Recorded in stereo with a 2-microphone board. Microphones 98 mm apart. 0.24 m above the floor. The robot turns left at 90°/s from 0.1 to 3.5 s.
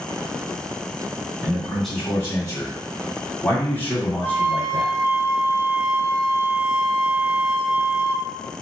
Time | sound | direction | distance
1.4 | a man speaking | 145° right | 1.9 m
4.2 | a flute | 40° left (ahead or behind) | 1.4 m